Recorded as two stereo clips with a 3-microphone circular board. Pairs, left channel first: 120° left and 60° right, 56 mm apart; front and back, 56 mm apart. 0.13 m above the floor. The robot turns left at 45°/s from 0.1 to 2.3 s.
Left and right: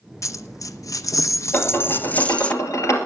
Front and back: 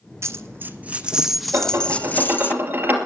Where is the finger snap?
No finger snap in this recording.